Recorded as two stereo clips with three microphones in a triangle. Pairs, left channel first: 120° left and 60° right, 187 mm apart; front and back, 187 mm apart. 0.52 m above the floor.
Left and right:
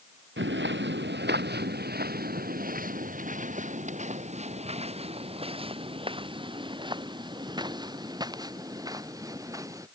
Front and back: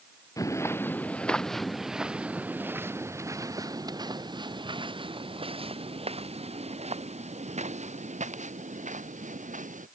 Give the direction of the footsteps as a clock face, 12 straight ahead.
2 o'clock.